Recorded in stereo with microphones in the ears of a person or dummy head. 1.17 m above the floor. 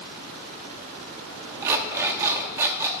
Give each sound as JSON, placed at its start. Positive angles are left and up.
{"t": 1.6, "sound": "an alarm clock", "side_deg": -15, "distance_m": 0.8}